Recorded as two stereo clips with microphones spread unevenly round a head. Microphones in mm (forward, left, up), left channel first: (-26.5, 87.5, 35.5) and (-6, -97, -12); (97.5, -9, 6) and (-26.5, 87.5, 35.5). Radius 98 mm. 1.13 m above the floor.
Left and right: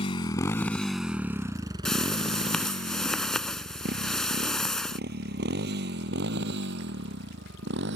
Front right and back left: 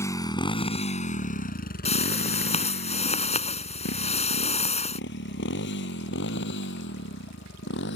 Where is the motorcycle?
40° left; by 8.0 s 50° right.